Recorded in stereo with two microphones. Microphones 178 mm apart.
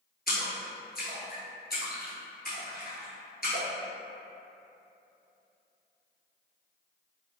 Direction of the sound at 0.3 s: 60° left (ahead or behind).